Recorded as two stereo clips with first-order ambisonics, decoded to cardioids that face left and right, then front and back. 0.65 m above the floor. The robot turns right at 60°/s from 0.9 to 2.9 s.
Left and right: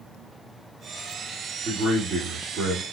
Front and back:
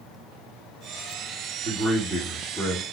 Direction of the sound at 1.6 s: 145° right.